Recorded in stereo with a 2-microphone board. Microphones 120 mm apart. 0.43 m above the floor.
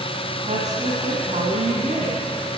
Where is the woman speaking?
75° right (ahead or behind), 3 m.